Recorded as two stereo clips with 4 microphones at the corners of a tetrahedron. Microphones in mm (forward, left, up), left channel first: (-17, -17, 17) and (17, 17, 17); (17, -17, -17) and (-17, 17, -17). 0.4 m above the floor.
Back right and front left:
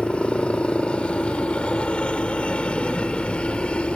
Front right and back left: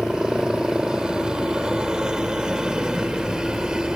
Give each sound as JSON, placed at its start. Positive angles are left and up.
{"t": 0.0, "sound": "a helicopter", "azimuth_deg": -170}